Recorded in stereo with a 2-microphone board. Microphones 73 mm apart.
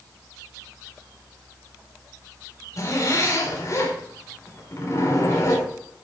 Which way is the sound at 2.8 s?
45° left (ahead or behind).